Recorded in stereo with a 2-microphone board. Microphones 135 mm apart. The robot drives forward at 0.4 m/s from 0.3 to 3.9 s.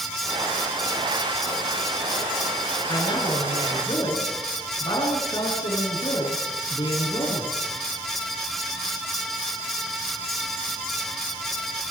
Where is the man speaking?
35° left (ahead or behind), 9.5 m.